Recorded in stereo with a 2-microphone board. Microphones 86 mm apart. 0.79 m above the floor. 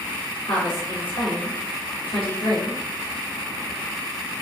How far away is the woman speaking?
About 1.5 m.